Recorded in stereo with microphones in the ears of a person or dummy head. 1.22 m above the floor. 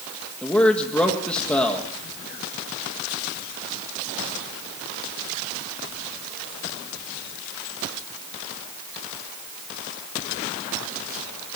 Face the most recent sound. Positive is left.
turn(degrees=5)  # may be behind; listen again after turning